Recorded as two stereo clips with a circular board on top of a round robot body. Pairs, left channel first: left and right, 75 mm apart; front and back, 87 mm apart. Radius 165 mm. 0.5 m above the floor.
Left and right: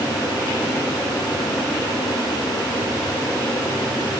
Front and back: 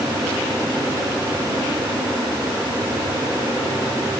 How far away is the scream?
No scream in this recording.